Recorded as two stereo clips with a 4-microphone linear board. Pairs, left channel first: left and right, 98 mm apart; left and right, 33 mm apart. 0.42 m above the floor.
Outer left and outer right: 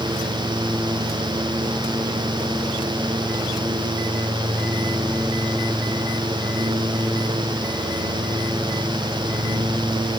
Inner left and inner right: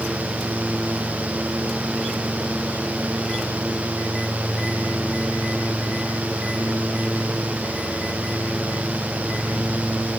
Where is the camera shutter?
I don't hear a camera shutter.